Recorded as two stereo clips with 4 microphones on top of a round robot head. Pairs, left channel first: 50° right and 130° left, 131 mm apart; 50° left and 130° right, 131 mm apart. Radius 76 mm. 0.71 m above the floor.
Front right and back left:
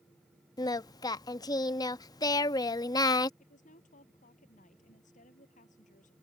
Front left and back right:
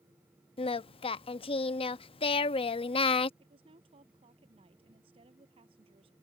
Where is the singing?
10° left.